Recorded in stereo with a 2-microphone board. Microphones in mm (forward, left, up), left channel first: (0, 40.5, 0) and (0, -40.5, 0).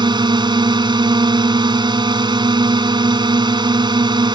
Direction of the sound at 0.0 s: 70° right (ahead or behind).